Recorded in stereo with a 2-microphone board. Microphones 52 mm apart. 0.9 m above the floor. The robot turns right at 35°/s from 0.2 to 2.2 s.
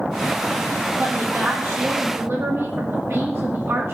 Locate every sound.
1.0 s a woman speaking: 135° right, 1.6 m; by 3.9 s 90° right, 1.6 m